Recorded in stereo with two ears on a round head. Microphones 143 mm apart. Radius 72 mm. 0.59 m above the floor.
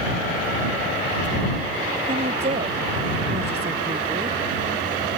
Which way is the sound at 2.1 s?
40° right (ahead or behind).